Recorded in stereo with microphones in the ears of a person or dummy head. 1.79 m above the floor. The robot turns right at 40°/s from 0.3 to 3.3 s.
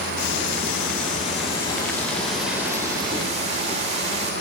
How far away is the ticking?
About 3 m.